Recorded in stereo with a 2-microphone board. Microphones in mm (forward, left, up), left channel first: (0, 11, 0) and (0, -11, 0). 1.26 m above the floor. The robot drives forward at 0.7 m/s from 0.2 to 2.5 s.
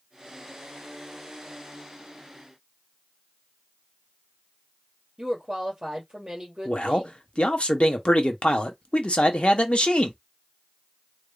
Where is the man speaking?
55° left (ahead or behind), 0.9 m.